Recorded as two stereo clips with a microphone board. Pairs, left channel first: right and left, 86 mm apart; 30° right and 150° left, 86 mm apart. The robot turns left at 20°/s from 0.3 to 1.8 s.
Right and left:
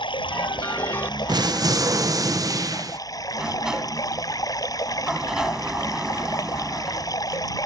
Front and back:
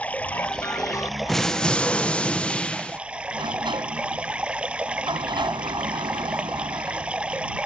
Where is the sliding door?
175° left.